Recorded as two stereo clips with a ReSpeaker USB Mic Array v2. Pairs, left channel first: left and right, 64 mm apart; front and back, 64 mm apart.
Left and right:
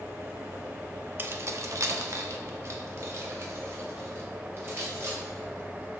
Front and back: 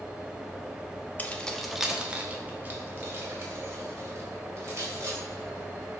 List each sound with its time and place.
1.2 s keys jangling: 50° right, 0.6 m; by 6.0 s 140° right, 3.5 m